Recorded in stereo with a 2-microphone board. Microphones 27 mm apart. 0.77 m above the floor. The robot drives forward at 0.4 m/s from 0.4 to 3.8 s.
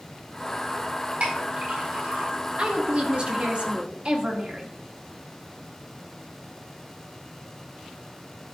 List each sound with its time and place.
1.2 s a clink: 60° right (ahead or behind), 3.5 m; by 2.3 s 55° right (ahead or behind), 4 m
2.6 s a woman speaking: 45° right (ahead or behind), 1.4 m